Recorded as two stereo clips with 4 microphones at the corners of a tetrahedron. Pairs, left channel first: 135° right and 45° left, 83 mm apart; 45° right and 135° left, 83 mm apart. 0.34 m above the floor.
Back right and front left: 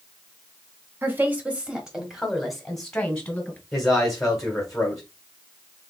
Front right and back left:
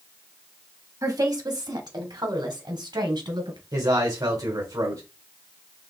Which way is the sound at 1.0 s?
105° left.